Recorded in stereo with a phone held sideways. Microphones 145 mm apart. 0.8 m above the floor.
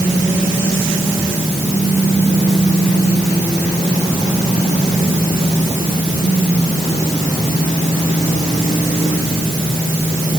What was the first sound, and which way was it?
Only background noise.